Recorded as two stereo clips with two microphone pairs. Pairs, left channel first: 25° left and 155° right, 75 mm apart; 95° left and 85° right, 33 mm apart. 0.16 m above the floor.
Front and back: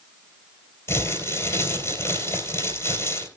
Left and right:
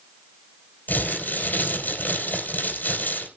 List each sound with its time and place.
0.9 s crumpling: 75° left, 3.5 m